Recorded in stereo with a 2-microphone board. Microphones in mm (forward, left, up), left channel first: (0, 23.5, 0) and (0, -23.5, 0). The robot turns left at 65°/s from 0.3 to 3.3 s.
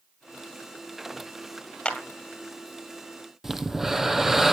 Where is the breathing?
10° right (ahead or behind), 0.9 m.